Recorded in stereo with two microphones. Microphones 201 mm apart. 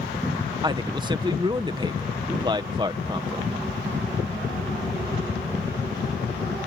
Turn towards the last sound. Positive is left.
turn(degrees=-20)  # may be behind; listen again after turning